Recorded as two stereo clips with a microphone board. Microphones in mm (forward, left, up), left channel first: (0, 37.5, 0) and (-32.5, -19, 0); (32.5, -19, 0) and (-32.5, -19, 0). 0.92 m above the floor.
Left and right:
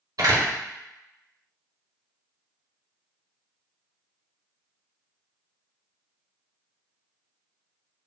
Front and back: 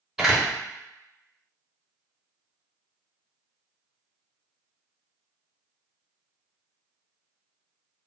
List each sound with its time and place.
0.2 s a door slam: 95° right, 0.8 m